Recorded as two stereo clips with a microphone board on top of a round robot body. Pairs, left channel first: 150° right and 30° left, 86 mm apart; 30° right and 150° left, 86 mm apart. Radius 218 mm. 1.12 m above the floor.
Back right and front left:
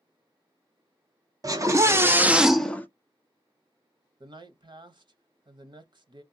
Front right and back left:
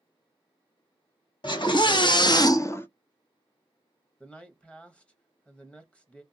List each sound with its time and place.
1.4 s a scream: 15° right, 1.4 m; by 2.9 s 90° right, 0.8 m
4.2 s a man speaking: 45° left, 0.9 m